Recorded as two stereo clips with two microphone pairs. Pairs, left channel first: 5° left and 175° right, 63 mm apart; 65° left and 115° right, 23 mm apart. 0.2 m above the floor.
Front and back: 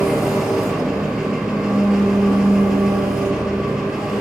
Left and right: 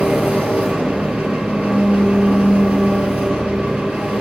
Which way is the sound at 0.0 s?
95° right.